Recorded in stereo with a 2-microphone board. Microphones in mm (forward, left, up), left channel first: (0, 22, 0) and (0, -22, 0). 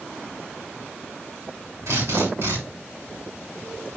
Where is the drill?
80° right, 6.5 m.